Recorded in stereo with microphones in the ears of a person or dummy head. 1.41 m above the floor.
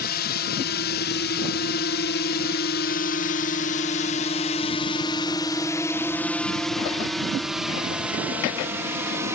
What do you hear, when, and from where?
0.0 s a drone: 50° left (ahead or behind); by 9.4 s 15° right (ahead or behind)